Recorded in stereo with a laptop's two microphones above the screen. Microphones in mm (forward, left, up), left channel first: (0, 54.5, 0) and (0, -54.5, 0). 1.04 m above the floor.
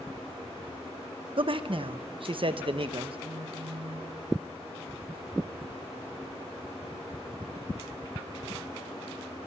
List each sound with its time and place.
1.4 s a man speaking: 50° right (ahead or behind), 0.9 m
3.2 s a phone buzzing: 80° right, 2.5 m